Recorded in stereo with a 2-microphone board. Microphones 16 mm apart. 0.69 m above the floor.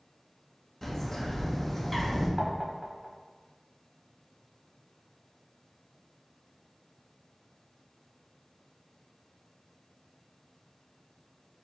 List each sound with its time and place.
0.8 s a bird: 20° left (ahead or behind), 0.7 m
2.4 s tapping: 35° right (ahead or behind), 0.5 m